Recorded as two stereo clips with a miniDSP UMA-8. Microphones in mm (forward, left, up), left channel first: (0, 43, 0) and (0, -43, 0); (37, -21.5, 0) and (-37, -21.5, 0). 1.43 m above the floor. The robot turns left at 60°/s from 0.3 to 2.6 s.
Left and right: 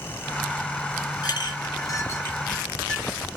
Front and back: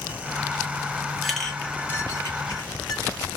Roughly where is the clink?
Left.